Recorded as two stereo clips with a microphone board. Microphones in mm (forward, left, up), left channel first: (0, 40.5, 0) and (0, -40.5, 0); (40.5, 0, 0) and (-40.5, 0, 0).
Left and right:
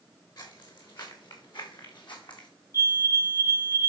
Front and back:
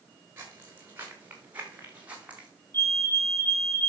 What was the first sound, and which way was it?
Footsteps, 115° left.